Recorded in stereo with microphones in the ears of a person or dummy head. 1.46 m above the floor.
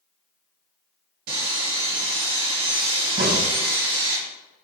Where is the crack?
65° right (ahead or behind), 1.2 m.